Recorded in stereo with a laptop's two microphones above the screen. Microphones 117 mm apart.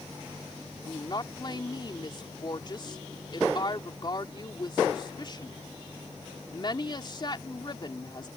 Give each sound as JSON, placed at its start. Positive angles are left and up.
{"t": 0.8, "sound": "a woman speaking", "side_deg": 40}